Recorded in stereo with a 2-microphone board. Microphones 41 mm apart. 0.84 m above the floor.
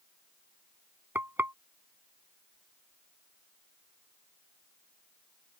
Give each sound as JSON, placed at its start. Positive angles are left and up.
{"t": 1.1, "sound": "frying", "side_deg": -55}